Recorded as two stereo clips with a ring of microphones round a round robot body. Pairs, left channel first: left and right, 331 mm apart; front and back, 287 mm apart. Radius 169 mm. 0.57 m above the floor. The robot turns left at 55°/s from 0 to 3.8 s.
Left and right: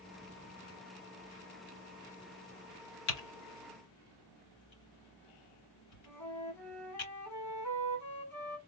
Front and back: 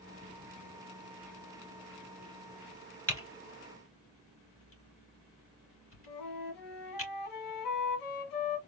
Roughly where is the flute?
Ahead.